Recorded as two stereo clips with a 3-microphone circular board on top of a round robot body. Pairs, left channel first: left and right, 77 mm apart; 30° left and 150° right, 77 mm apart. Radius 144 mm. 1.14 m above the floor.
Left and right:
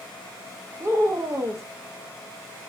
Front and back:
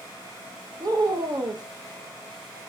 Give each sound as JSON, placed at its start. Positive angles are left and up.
{"t": 0.8, "sound": "a woman speaking", "azimuth_deg": -140, "distance_m": 1.0}